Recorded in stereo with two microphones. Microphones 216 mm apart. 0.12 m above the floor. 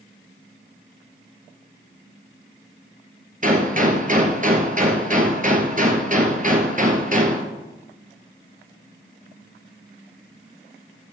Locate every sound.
3.4 s a gunshot: 40° right (ahead or behind), 1.5 m